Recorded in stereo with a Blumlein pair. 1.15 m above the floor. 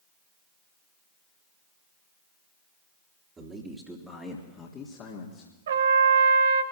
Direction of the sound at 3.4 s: 20° right.